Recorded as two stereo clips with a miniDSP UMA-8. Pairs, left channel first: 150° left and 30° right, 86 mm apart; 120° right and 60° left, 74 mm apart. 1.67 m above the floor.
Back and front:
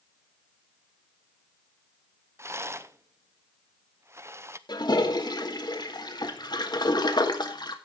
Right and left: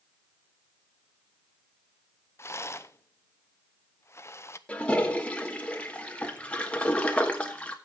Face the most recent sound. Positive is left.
turn(degrees=170)